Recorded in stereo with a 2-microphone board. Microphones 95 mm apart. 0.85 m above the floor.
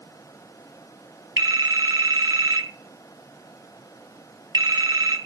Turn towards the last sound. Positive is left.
turn(degrees=-45)  # may be behind; listen again after turning